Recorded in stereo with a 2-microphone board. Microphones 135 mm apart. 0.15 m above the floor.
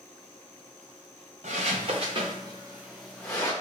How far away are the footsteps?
About 1.1 m.